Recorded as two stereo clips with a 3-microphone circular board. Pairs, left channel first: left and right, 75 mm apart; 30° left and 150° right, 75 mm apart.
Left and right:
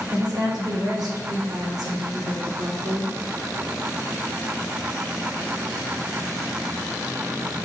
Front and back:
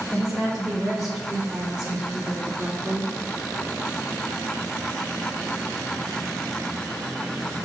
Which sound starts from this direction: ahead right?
A woman speaking, at 0.1 s.